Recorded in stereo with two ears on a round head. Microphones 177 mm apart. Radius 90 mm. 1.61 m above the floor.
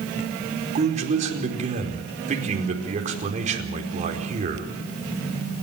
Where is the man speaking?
40° right (ahead or behind), 4.5 m.